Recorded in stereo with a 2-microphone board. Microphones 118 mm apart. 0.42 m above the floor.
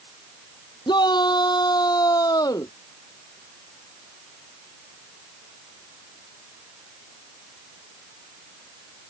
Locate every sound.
0.9 s a shout: 40° left (ahead or behind); by 2.7 s 30° left (ahead or behind)